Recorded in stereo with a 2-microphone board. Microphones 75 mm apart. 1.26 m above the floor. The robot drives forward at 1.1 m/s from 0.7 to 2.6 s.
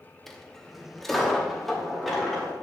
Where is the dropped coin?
5° left (ahead or behind), 0.7 m; by 2.5 s centre (ahead or behind), 2.5 m.